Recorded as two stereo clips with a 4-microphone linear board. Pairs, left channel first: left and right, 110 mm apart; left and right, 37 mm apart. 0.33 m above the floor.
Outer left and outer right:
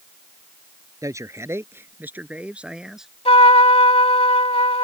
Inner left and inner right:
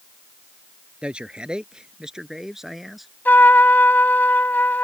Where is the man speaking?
30° right (ahead or behind); by 3.1 s 5° right (ahead or behind).